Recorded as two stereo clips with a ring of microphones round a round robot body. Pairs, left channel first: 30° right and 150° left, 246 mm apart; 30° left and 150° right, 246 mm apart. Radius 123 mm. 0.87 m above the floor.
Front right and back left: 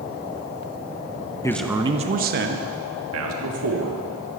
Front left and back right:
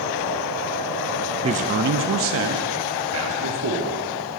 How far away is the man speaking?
About 0.6 m.